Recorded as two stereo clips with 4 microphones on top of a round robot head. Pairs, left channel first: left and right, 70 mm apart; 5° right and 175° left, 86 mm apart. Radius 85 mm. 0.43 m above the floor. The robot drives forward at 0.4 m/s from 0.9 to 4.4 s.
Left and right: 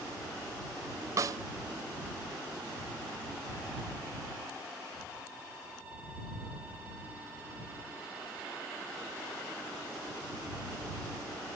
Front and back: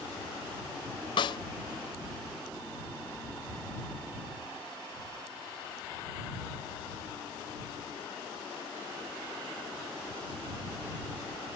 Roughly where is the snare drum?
Ahead right.